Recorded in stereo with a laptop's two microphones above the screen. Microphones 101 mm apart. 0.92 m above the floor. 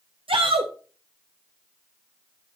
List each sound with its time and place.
0.3 s a shout: 65° right (ahead or behind), 0.8 m